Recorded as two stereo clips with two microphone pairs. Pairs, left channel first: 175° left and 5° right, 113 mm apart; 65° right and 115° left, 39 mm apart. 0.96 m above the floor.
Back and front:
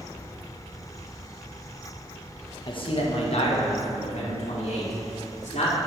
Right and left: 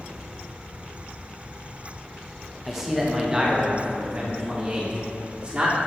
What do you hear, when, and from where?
2.7 s a man speaking: 160° right, 0.8 m; by 5.8 s 170° left, 2.5 m